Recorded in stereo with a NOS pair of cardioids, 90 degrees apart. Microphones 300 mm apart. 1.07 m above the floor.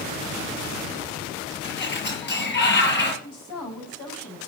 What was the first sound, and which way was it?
A sliding door, 35° left.